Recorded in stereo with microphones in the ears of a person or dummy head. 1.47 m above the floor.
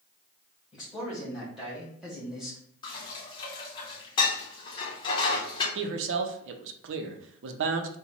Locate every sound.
0.7 s a man speaking: centre (ahead or behind), 1.7 m
2.8 s dishes clattering: 30° left (ahead or behind), 0.8 m
5.8 s a man speaking: 75° right (ahead or behind), 0.6 m